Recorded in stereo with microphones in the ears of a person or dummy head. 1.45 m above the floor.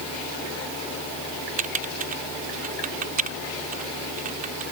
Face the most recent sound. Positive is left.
turn(degrees=-45)  # may be behind; listen again after turning